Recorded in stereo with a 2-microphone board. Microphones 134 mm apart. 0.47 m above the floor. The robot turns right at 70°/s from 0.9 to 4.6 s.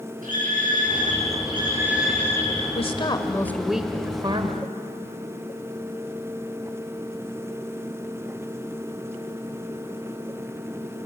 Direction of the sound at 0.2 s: 85° right.